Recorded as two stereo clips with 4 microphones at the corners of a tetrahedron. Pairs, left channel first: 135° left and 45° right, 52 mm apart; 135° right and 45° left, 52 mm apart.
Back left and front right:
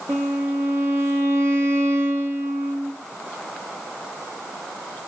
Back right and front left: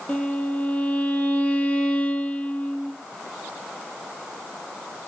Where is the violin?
70° right, 3.5 m.